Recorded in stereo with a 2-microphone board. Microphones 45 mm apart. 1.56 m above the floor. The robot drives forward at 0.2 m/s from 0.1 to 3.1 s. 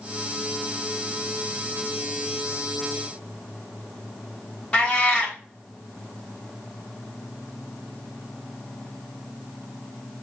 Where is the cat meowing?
25° left (ahead or behind), 1.1 m.